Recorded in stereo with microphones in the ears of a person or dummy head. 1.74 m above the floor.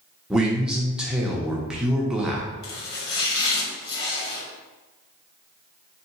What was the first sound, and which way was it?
A man speaking, 5° right (ahead or behind).